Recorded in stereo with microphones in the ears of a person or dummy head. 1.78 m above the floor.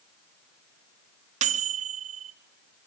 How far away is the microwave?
About 0.6 m.